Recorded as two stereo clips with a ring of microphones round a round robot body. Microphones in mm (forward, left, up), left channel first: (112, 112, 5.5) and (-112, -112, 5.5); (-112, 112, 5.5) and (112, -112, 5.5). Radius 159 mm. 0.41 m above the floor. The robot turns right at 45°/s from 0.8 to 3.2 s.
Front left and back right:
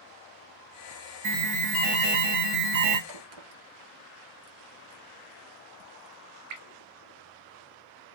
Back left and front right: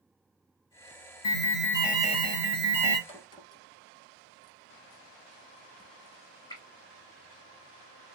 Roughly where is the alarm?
Behind.